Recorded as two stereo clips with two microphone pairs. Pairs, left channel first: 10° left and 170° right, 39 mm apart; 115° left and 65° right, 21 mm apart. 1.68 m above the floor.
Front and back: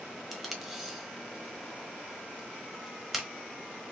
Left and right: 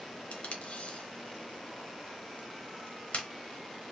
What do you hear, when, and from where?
0.3 s tape being pulled: 105° left, 1.0 m